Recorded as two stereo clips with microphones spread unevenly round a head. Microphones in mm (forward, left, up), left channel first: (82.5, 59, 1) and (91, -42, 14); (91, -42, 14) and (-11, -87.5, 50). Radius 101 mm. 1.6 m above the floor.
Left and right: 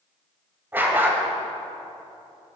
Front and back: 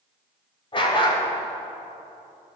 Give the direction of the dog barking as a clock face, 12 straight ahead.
1 o'clock.